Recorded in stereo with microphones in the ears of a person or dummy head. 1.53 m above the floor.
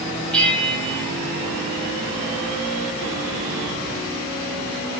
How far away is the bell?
About 3 m.